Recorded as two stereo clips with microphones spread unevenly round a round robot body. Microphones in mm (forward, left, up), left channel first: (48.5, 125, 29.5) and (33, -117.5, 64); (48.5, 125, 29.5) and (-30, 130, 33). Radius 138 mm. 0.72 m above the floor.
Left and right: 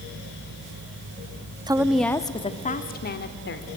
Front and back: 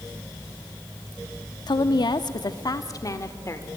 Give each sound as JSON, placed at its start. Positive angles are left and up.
{"t": 1.7, "sound": "a woman speaking", "azimuth_deg": -20, "distance_m": 1.0}